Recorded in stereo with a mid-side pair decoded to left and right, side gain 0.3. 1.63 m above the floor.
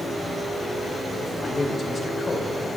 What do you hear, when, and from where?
1.4 s a man speaking: 50° left, 2 m